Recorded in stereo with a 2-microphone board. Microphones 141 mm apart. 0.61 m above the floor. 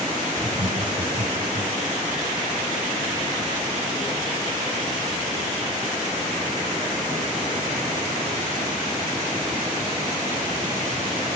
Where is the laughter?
65° right (ahead or behind), 2.5 m; by 1.8 s 50° right (ahead or behind), 3 m.